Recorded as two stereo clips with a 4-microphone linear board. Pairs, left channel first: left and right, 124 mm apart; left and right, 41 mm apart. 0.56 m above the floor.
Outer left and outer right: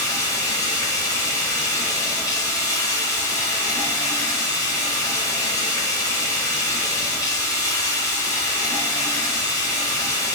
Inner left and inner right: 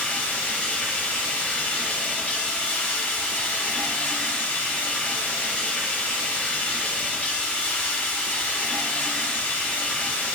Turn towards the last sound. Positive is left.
turn(degrees=30)  # may be behind; listen again after turning